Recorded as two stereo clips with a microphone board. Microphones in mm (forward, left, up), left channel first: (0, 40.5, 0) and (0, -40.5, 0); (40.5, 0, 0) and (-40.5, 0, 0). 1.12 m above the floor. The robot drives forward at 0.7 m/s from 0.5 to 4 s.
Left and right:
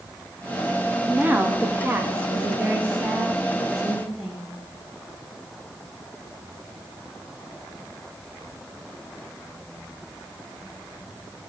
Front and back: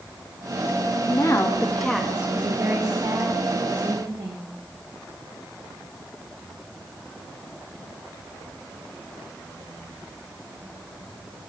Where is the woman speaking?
25° right, 0.9 m; by 4.5 s 170° right, 1.5 m.